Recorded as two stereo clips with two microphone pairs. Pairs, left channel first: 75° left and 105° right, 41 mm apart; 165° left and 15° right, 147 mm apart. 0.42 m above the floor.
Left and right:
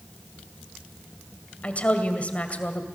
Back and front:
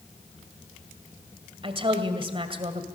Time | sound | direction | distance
1.6 | a woman speaking | 30° left | 2 m